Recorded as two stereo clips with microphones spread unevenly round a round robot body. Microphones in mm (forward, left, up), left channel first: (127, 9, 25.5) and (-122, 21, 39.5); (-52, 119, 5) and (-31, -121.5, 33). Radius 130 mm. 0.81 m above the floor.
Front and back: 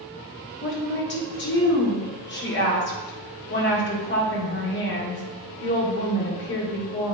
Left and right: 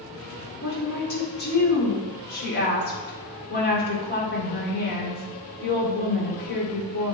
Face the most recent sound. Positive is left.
turn(degrees=45)